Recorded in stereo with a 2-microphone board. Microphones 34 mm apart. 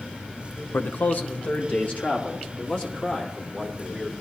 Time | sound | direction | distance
0.7 | a man speaking | 65° left (ahead or behind) | 0.6 m